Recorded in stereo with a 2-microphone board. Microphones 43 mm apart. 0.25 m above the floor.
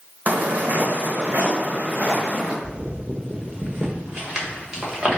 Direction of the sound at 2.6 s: 20° right (ahead or behind).